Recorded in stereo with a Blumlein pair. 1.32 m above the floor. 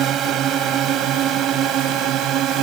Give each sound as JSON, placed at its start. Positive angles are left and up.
{"t": 0.0, "sound": "a drone", "azimuth_deg": -30}